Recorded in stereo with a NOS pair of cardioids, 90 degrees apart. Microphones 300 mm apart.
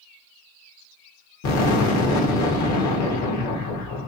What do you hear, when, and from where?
1.4 s an explosion: 65° left, 1.8 m